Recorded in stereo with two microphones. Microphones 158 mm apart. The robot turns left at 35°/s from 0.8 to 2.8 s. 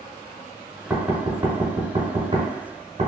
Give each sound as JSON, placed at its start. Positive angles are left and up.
{"t": 0.9, "sound": "knocking", "side_deg": -10, "distance_m": 0.9}